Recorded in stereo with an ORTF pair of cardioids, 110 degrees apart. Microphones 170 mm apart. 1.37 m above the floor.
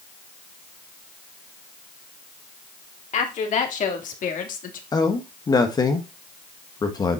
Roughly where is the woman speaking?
Ahead left.